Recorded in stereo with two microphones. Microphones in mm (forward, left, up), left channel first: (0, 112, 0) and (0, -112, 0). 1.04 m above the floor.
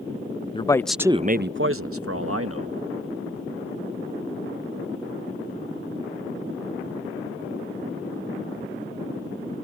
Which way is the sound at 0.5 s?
25° left (ahead or behind).